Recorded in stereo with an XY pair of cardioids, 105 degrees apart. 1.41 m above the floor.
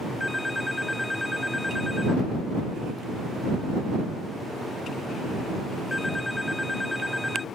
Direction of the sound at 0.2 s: 10° left.